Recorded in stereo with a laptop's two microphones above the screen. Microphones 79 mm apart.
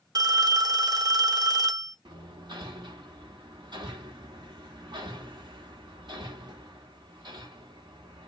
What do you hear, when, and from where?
0.1 s a phone ringing: 55° right (ahead or behind), 0.6 m
2.0 s hammering: 75° right (ahead or behind), 1.2 m